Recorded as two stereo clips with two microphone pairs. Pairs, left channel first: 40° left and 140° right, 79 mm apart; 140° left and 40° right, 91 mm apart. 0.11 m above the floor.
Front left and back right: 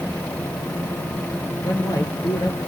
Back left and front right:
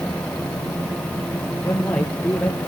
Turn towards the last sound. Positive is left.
turn(degrees=65)